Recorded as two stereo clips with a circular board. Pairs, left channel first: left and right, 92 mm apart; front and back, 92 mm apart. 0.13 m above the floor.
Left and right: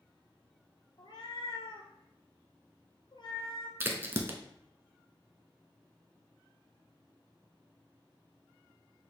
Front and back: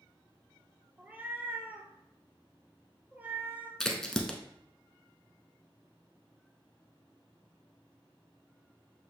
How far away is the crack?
About 0.7 m.